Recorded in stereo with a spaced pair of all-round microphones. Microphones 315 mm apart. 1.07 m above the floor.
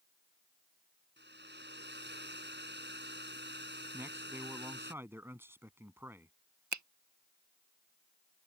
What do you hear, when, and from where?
1.2 s a hair dryer: 35° right (ahead or behind)
3.9 s a man speaking: 5° right (ahead or behind)
6.7 s a finger snap: 65° right (ahead or behind)